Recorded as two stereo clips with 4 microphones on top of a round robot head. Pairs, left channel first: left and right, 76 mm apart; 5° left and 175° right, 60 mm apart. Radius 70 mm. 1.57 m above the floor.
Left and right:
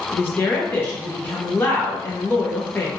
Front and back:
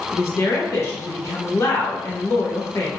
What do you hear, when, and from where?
0.1 s a woman speaking: 35° left, 0.6 m